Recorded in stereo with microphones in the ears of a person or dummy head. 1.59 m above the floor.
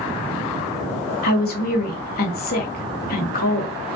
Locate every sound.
1.2 s a woman speaking: 50° left (ahead or behind), 0.8 m